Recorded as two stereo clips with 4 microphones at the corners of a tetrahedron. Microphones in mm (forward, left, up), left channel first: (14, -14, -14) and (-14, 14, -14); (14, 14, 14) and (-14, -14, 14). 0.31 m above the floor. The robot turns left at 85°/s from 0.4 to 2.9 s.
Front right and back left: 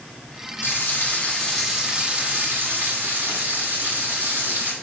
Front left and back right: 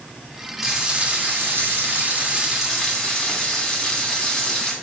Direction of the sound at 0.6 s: 50° right.